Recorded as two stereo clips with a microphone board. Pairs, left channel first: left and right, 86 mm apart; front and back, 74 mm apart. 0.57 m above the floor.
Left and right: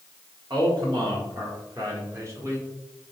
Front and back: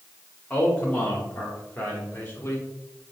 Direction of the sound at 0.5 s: 70° right.